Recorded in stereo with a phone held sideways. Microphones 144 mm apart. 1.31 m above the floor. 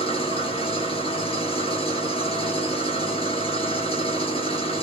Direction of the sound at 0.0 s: 35° left (ahead or behind).